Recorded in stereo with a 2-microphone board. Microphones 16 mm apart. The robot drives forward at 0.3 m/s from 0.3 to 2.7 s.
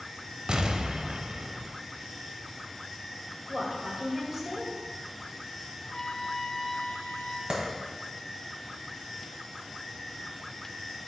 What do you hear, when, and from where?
0.5 s an explosion: 65° right (ahead or behind), 0.6 m; by 1.7 s 60° right (ahead or behind), 0.6 m
3.5 s a woman speaking: 15° right (ahead or behind), 2 m
5.8 s a trumpet: 40° left (ahead or behind), 0.6 m
7.5 s a clap: 55° right (ahead or behind), 1.8 m